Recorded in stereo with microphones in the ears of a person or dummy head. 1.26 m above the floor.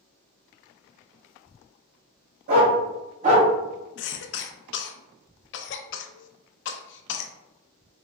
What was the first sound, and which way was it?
A dog barking, 55° right (ahead or behind).